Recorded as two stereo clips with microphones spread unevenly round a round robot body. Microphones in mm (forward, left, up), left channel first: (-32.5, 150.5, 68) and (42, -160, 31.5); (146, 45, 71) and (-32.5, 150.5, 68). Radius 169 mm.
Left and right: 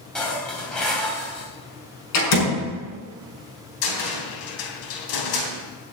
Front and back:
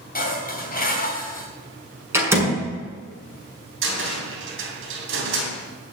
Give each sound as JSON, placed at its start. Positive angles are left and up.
{"t": 0.1, "sound": "dishes clattering", "azimuth_deg": 15, "distance_m": 3.0}
{"t": 2.1, "sound": "a door slam", "azimuth_deg": 70, "distance_m": 6.0}
{"t": 3.8, "sound": "a cupboard door", "azimuth_deg": 130, "distance_m": 3.5}